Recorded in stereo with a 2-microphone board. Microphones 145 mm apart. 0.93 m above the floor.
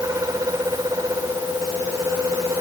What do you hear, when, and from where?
Only background noise.